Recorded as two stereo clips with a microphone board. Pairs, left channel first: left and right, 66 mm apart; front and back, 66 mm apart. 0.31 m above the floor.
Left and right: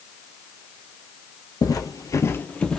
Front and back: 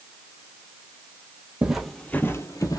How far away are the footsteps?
About 0.6 m.